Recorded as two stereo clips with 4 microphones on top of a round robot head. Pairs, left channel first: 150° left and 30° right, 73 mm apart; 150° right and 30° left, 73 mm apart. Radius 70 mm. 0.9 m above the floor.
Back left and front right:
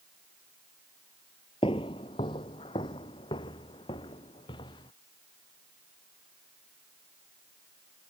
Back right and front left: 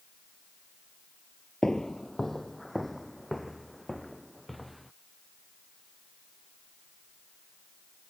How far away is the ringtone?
I don't hear a ringtone.